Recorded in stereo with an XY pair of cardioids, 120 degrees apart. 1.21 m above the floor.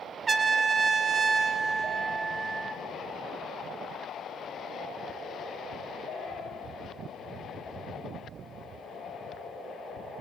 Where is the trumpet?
30° right, 1.4 m.